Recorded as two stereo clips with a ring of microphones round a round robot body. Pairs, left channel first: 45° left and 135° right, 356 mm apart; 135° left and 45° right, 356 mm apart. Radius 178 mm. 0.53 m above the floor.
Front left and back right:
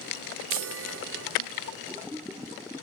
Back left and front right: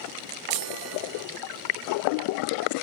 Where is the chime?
80° right, 0.6 m.